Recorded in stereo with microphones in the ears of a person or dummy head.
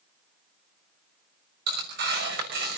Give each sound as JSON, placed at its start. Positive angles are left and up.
{"t": 1.7, "sound": "tearing paper", "side_deg": -65, "distance_m": 5.5}